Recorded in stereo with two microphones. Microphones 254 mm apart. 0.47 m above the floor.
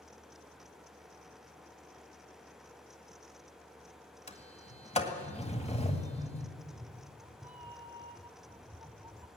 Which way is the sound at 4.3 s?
25° left (ahead or behind).